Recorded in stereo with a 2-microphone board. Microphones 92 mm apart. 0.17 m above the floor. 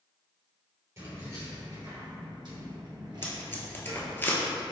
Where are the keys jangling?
35° right (ahead or behind), 1.8 m; by 4.1 s 45° right (ahead or behind), 1.7 m.